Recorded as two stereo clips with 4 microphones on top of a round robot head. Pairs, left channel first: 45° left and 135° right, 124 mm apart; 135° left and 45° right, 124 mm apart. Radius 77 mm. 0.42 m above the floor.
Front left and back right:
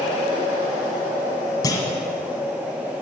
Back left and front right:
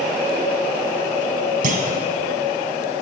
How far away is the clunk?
About 1.3 m.